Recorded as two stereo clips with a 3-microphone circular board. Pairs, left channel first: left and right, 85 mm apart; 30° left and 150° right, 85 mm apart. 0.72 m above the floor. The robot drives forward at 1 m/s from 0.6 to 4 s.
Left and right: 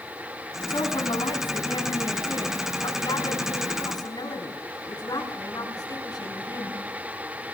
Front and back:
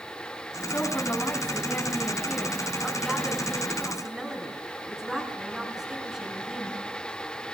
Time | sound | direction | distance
0.7 | a woman speaking | 80° left | 5 m